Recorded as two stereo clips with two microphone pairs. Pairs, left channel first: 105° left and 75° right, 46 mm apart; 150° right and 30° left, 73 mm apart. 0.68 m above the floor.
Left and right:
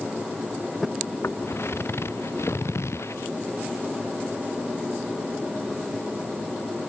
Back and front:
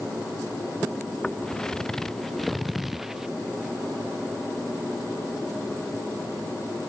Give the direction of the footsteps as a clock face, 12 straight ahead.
8 o'clock.